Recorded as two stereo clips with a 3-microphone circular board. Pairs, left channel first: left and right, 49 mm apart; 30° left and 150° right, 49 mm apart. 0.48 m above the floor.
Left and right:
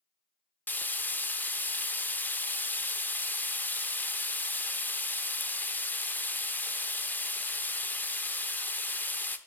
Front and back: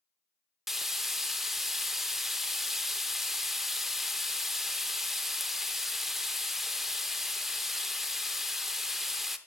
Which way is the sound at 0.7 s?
125° left.